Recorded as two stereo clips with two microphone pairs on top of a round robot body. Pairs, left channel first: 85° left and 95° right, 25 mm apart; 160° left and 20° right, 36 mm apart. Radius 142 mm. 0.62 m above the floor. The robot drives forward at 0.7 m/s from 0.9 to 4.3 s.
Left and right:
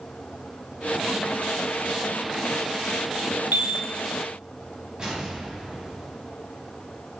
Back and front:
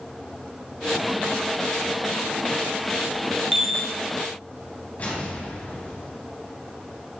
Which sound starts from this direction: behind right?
An explosion, at 5.0 s.